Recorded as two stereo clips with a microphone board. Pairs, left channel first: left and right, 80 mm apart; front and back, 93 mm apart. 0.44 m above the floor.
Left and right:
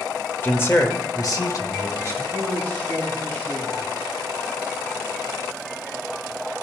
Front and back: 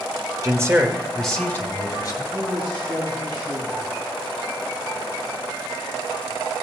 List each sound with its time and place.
0.4 s a man speaking: 145° left, 1.6 m; by 2.2 s 40° left, 2 m
2.3 s a man speaking: 145° left, 4 m